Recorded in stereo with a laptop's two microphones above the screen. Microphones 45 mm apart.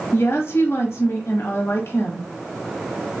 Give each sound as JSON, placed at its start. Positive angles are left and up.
{"t": 0.1, "sound": "a woman speaking", "side_deg": 75, "distance_m": 1.2}